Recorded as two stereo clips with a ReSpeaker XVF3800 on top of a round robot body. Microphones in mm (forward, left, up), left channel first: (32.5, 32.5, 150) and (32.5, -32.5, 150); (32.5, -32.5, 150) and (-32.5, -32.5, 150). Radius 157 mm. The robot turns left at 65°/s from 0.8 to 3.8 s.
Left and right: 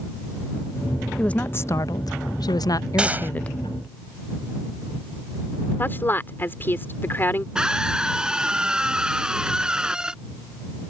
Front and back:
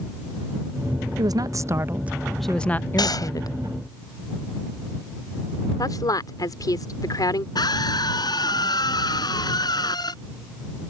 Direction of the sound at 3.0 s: 10° right.